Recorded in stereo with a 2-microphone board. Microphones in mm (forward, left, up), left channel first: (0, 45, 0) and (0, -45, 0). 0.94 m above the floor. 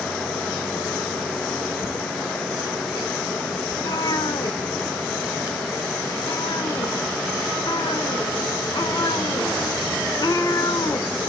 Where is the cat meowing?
45° left (ahead or behind), 0.8 m.